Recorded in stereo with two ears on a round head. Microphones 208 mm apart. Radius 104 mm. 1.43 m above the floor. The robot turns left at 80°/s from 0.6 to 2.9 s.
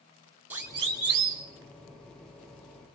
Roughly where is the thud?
No thud in this recording.